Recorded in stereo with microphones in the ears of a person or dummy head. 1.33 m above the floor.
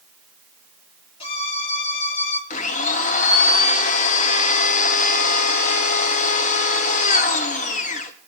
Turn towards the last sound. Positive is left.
turn(degrees=35)  # may be behind; listen again after turning